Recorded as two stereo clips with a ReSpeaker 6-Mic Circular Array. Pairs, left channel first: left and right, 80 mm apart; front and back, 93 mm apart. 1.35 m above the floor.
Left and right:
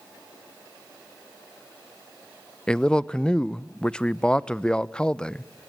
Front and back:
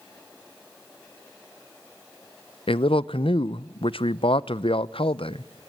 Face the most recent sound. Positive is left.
turn(degrees=10)